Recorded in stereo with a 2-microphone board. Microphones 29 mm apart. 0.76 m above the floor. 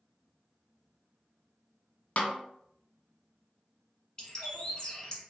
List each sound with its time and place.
2.2 s a snare drum: 50° left (ahead or behind), 0.5 m
4.2 s a bird: 25° left (ahead or behind), 1.1 m